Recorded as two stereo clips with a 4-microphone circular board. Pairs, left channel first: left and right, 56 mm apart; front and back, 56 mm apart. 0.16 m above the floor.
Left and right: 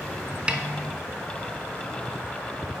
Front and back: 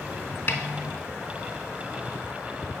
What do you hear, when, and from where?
0.5 s a snare drum: 30° right, 0.8 m